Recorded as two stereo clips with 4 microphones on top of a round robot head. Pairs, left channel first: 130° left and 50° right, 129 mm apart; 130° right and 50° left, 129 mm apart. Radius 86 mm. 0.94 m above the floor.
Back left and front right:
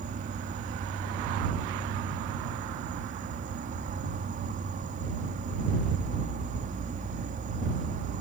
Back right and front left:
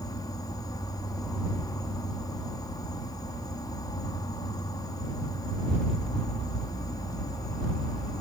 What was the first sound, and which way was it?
An insect, 70° right.